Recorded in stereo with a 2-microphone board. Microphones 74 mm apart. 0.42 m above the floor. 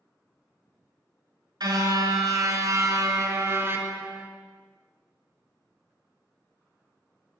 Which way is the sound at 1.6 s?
65° right (ahead or behind).